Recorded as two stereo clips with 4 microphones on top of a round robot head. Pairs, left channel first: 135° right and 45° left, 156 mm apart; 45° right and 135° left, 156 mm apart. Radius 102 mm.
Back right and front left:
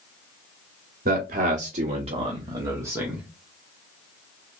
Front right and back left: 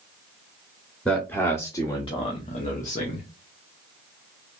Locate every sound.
1.1 s a man speaking: 35° left, 1.3 m; by 3.3 s 40° right, 1.2 m